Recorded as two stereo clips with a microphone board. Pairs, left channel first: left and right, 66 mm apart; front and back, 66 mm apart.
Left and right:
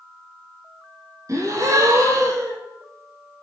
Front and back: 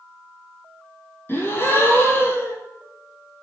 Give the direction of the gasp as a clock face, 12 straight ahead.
2 o'clock.